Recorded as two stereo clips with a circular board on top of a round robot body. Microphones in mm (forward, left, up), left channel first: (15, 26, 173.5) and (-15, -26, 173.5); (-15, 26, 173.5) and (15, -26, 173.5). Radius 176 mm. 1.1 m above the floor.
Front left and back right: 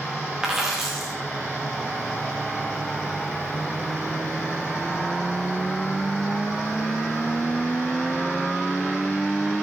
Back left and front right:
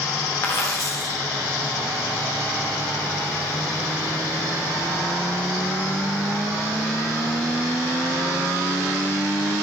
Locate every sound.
0.4 s a dropped coin: 165° left, 0.5 m